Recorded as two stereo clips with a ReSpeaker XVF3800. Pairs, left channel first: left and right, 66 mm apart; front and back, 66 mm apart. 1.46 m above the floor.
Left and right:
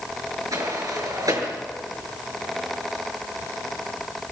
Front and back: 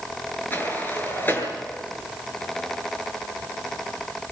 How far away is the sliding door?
About 7.5 m.